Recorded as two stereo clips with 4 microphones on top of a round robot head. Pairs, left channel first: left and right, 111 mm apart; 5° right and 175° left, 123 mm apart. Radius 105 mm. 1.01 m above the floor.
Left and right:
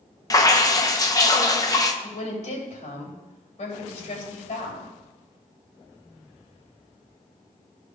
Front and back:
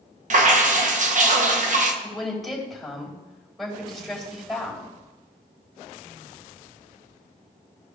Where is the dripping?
150° left, 1.0 m.